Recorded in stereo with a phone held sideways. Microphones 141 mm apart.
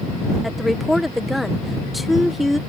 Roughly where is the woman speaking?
Centre.